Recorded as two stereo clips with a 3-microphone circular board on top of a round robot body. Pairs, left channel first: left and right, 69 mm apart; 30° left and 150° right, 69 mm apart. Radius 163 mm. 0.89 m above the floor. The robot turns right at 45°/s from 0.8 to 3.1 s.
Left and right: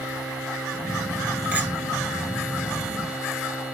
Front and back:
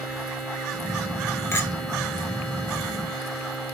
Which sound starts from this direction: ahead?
A clink, at 1.5 s.